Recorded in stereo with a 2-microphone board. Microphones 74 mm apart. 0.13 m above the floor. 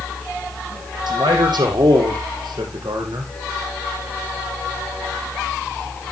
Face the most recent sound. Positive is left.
turn(degrees=-65)  # may be behind; listen again after turning